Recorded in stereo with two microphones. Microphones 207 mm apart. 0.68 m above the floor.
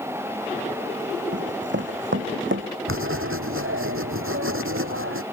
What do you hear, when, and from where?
1.3 s running footsteps: 60° right (ahead or behind); by 2.7 s 70° right (ahead or behind)
2.9 s writing: 80° right